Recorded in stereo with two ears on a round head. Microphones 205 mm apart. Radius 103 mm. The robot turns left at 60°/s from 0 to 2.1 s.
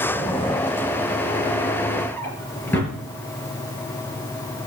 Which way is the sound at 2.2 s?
10° left (ahead or behind).